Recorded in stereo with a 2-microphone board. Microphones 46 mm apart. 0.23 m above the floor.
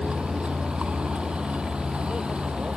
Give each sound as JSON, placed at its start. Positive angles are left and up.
{"t": 0.0, "sound": "a vehicle", "side_deg": -25}